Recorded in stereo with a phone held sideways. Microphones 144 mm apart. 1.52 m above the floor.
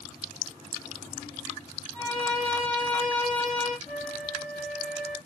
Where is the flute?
30° right (ahead or behind), 1.8 m.